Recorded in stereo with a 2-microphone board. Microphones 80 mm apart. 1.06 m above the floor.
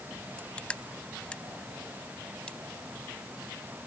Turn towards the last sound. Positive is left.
turn(degrees=15)  # may be behind; listen again after turning